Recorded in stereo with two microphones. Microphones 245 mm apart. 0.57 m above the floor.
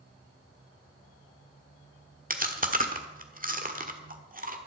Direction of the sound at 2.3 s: 35° right (ahead or behind).